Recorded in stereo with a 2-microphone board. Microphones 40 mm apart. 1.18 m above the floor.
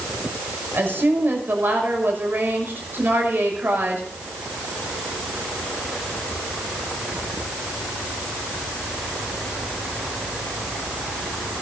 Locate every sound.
0.7 s a woman speaking: 70° right (ahead or behind), 6 m